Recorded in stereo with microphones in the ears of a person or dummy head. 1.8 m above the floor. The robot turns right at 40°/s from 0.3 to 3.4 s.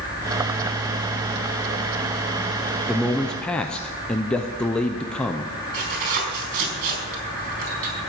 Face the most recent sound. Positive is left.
turn(degrees=-45)  # may be behind; listen again after turning